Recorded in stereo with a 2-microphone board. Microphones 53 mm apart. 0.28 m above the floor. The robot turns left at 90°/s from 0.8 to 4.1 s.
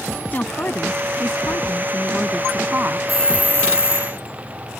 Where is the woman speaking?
140° left; by 3.0 s 55° right.